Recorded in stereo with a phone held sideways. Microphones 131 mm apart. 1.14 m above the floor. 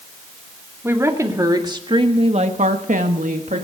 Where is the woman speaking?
20° right (ahead or behind), 2.5 m; by 3.6 s 70° right (ahead or behind), 1.7 m.